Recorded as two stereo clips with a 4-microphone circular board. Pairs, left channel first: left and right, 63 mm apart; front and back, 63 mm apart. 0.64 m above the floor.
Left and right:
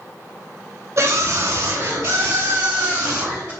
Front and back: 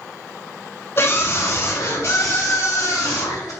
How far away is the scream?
About 2.5 m.